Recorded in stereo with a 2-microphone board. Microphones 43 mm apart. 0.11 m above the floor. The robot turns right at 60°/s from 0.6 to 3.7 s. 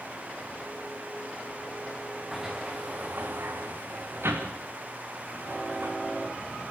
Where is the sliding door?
5° right (ahead or behind), 3 m; by 5.9 s 85° right, 3 m.